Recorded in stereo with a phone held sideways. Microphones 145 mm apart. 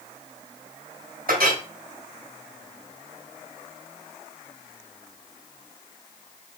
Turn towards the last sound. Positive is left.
turn(degrees=-80)